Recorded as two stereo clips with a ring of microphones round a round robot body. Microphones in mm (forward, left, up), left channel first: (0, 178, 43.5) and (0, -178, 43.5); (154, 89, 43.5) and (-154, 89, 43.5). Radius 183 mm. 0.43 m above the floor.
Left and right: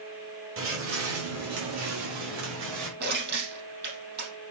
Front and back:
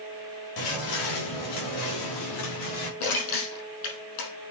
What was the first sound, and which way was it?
Footsteps, 35° right.